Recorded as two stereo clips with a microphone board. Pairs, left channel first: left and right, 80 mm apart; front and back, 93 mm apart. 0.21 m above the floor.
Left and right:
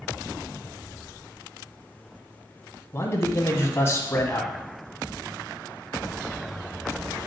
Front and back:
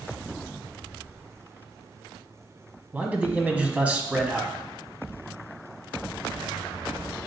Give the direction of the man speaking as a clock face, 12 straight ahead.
8 o'clock.